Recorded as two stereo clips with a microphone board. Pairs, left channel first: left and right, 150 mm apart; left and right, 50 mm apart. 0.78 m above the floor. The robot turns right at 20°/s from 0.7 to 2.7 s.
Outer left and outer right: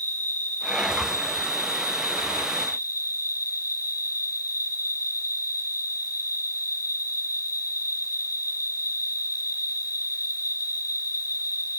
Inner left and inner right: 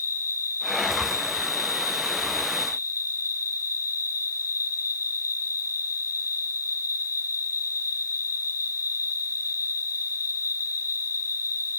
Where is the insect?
60° left, 7 m; by 11.8 s 100° left, 7 m.